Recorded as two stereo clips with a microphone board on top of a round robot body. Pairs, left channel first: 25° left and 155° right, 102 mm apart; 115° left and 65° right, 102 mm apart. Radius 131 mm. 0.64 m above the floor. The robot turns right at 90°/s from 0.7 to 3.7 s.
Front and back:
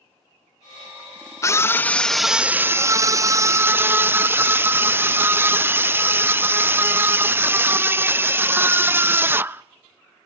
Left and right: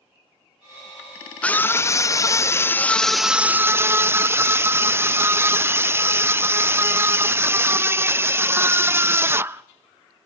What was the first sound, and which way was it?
A scream, 45° left.